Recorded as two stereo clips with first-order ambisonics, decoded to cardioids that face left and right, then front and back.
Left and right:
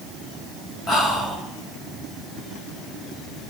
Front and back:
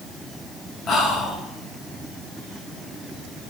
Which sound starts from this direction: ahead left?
Whispering, at 0.9 s.